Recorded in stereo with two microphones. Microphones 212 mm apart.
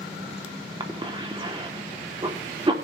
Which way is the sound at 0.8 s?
25° right (ahead or behind).